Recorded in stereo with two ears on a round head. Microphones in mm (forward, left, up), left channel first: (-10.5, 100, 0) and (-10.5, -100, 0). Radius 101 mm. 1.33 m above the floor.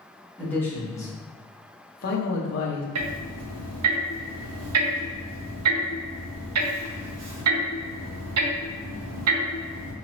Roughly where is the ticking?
Right.